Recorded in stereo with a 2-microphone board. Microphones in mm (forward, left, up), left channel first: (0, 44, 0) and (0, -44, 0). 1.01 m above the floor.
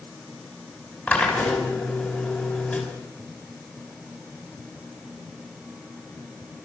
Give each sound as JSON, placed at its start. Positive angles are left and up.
{"t": 1.1, "sound": "a drill", "side_deg": 20, "distance_m": 5.5}